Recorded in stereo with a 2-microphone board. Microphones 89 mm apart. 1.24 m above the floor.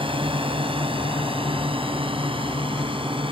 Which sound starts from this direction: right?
A drone, at 0.0 s.